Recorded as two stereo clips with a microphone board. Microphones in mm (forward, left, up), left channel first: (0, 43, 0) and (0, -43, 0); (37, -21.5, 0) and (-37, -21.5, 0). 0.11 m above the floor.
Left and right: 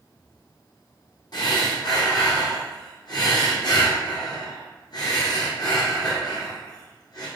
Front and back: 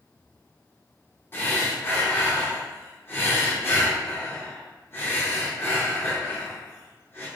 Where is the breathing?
60° left, 1.9 m.